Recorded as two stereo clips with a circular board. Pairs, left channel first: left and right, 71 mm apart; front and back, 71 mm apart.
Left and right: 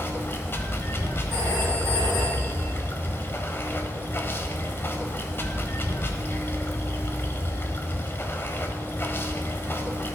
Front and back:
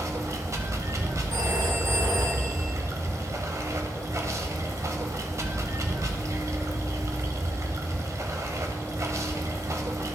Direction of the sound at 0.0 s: 145° left.